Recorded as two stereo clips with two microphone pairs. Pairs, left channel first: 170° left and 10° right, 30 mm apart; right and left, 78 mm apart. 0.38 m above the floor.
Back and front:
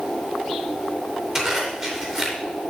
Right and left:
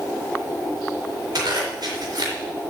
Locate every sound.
1.4 s a zipper: 65° left, 3.5 m